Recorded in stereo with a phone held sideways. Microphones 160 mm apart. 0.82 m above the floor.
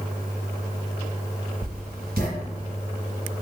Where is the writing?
75° right (ahead or behind), 1.9 m.